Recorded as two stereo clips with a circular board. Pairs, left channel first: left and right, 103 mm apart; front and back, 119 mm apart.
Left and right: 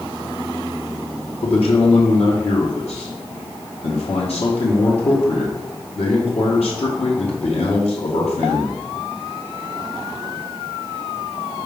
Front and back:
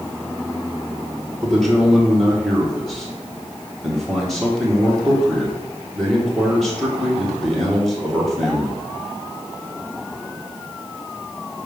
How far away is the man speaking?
About 2.0 m.